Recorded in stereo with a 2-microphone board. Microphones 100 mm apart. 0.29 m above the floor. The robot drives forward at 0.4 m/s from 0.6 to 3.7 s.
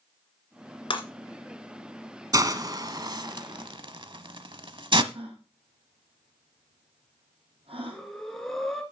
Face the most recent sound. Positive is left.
turn(degrees=0)  # may be behind; listen again after turning